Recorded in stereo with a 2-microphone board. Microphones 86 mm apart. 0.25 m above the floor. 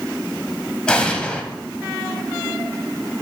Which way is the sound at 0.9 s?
10° left (ahead or behind).